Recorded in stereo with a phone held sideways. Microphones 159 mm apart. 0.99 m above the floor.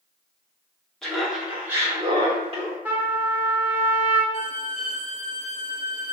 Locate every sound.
1.0 s laughter: 5° left (ahead or behind), 1.1 m; by 2.8 s 40° right (ahead or behind), 0.9 m
2.9 s a trumpet: 10° right (ahead or behind), 0.6 m
4.3 s a violin: 45° left (ahead or behind), 1.2 m